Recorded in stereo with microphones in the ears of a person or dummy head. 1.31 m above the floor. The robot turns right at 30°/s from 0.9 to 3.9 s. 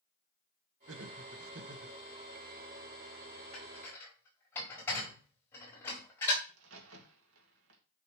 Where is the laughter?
90° right, 1.4 m; by 2.0 s 60° right, 1.4 m.